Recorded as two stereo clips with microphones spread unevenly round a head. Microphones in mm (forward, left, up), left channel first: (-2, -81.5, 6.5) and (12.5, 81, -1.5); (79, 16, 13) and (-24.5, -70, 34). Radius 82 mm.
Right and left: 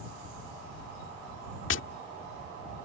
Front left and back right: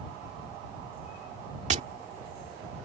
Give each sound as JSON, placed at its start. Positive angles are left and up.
{"t": 1.7, "sound": "tapping", "azimuth_deg": -105}